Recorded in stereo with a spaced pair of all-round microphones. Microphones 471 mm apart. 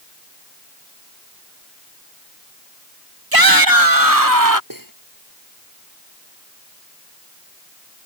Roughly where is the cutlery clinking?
Right.